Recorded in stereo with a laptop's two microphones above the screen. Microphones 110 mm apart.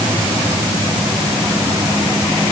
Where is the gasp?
No gasp in this recording.